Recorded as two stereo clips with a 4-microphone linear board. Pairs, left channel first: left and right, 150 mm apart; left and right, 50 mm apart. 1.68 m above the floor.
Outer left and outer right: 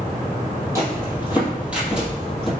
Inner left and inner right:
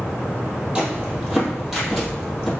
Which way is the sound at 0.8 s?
20° right (ahead or behind).